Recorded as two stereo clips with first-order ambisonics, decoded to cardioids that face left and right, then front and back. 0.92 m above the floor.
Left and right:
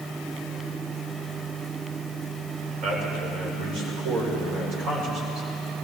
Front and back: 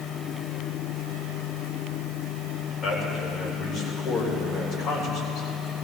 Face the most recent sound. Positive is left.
turn(degrees=-60)